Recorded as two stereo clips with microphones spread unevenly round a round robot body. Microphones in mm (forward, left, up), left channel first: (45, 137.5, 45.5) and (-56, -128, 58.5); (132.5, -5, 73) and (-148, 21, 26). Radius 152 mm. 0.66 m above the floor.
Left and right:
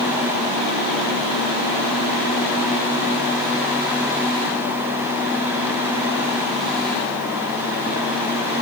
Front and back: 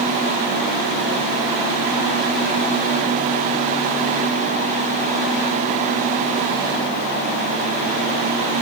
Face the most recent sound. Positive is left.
No sound to turn to.